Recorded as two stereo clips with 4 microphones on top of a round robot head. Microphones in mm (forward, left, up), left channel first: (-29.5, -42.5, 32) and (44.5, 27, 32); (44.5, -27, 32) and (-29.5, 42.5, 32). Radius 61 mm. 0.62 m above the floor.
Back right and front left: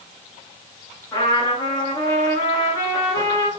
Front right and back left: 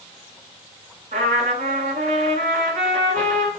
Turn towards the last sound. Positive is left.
turn(degrees=165)